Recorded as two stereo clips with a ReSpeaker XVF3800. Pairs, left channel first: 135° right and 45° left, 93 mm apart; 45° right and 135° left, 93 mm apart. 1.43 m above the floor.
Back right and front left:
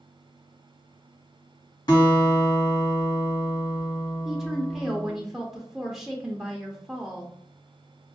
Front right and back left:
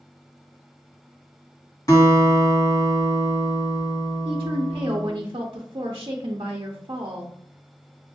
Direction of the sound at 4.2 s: 130° left.